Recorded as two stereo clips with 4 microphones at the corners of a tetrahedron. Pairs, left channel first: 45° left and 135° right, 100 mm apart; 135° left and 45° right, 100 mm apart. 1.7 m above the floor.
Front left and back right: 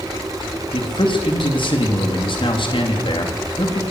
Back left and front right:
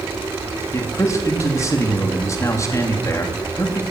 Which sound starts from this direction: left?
A man speaking, at 0.7 s.